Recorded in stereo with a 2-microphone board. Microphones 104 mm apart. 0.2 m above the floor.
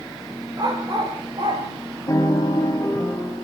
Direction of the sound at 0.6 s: 40° right (ahead or behind).